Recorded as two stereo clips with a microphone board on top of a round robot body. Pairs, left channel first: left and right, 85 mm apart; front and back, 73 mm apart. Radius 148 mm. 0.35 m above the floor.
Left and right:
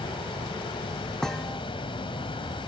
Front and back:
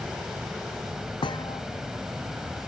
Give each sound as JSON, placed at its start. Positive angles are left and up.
{"t": 0.0, "sound": "running water", "azimuth_deg": 95}
{"t": 1.2, "sound": "a thud", "azimuth_deg": 10}